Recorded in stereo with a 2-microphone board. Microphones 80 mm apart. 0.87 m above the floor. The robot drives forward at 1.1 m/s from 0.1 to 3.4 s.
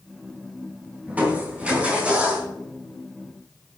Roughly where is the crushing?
Right.